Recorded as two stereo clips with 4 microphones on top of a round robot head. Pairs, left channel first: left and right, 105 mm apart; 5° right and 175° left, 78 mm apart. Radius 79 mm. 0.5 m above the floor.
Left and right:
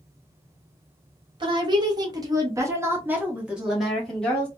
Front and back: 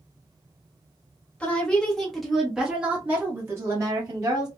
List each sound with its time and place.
1.4 s a woman speaking: 75° right, 1.4 m; by 4.5 s 170° left, 1.4 m